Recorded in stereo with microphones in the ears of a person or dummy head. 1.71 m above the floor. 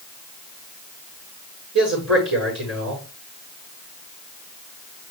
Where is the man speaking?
70° right (ahead or behind), 5.5 m.